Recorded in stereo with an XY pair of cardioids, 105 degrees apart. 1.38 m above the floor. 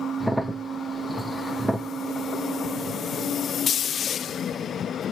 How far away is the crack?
About 0.6 m.